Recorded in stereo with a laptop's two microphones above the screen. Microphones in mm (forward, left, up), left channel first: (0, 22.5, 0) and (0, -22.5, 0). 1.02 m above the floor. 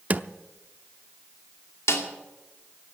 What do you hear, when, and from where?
0.1 s a drawer: 35° right (ahead or behind), 0.6 m
1.9 s a snare drum: 85° left, 2.5 m